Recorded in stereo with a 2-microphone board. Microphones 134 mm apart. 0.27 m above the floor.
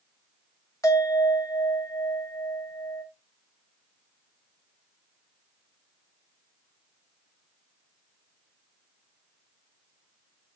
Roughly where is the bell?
Left.